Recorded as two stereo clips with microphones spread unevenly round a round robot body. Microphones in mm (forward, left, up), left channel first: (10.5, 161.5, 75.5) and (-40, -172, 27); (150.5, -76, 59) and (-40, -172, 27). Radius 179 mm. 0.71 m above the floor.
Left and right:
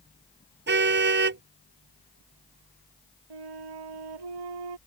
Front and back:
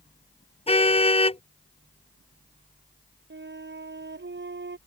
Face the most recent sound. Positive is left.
turn(degrees=-115)